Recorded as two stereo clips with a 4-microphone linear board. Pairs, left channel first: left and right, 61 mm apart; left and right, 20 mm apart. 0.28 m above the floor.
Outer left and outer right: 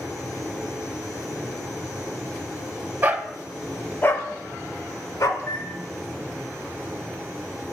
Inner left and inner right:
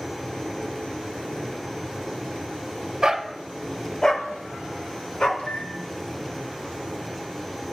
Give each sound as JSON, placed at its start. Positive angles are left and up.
{"t": 3.0, "sound": "a dog barking", "side_deg": -35, "distance_m": 0.6}
{"t": 5.4, "sound": "a microwave", "side_deg": 60, "distance_m": 3.0}